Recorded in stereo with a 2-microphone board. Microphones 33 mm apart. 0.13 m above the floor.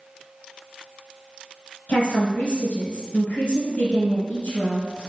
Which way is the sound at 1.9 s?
40° left (ahead or behind).